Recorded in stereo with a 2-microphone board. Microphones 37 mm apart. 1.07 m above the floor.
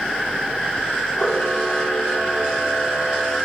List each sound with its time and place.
1.2 s a camera shutter: 25° left (ahead or behind), 2 m